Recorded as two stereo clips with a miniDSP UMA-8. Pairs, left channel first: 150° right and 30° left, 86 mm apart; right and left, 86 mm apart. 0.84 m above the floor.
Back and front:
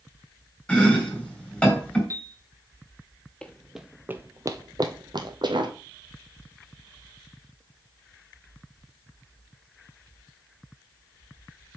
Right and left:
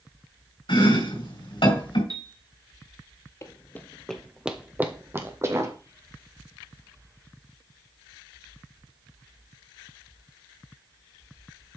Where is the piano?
70° left, 1.1 m.